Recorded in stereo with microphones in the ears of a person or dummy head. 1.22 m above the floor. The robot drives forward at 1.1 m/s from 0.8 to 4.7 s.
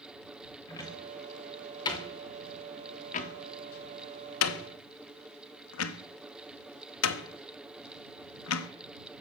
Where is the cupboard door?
15° left (ahead or behind), 4.5 m; by 8.7 s 80° left, 1.3 m.